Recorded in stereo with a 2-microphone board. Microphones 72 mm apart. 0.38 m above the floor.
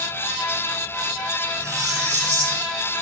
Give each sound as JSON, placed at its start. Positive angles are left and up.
{"t": 1.6, "sound": "cutlery clinking", "side_deg": -40, "distance_m": 4.0}